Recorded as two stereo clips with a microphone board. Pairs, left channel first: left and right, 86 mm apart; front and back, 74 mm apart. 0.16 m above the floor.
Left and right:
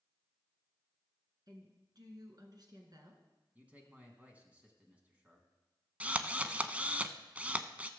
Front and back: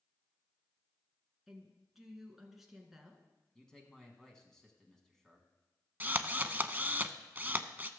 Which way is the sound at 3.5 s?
70° right.